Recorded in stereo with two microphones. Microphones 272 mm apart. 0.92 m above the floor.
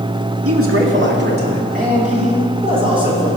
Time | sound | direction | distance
0.5 | a man speaking | 55° right (ahead or behind) | 2.0 m